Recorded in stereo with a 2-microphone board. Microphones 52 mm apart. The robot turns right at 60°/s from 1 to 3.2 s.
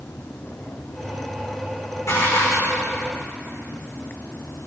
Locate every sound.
2.1 s dishes clattering: 65° left, 5 m; by 2.8 s 105° left, 5 m